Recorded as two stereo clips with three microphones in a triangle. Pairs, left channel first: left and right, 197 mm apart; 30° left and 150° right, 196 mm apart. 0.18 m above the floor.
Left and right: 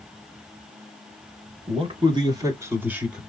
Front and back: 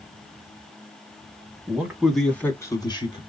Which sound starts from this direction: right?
A man speaking, at 1.7 s.